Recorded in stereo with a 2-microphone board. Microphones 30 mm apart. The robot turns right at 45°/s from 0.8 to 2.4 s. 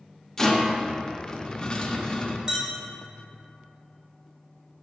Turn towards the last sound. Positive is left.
turn(degrees=-25)  # may be behind; listen again after turning